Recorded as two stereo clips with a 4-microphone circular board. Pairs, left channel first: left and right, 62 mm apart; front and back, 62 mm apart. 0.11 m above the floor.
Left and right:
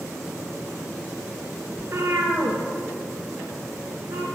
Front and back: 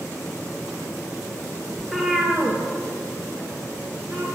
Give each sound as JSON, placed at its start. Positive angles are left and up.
{"t": 1.8, "sound": "a cat meowing", "azimuth_deg": -90, "distance_m": 0.9}